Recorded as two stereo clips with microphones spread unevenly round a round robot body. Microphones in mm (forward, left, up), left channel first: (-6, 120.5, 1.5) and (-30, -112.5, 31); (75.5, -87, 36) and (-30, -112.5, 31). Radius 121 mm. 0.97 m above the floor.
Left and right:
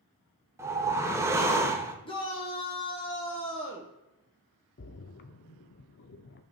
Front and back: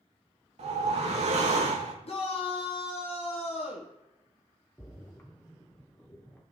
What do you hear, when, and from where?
0.6 s a whoosh: 170° right, 1.0 m
2.0 s a shout: 25° left, 1.2 m
4.8 s a splash: 75° left, 0.6 m